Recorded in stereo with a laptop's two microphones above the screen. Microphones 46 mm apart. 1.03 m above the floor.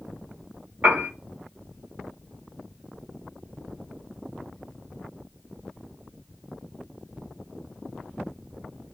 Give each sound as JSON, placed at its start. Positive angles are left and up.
{"t": 0.8, "sound": "a piano", "side_deg": -50, "distance_m": 1.4}